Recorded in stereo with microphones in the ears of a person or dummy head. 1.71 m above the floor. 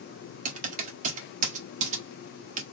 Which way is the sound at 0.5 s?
50° right (ahead or behind).